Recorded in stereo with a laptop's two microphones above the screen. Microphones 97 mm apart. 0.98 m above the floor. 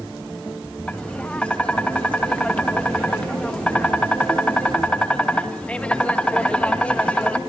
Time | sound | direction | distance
0.9 | tapping | 10° left (ahead or behind) | 1.3 m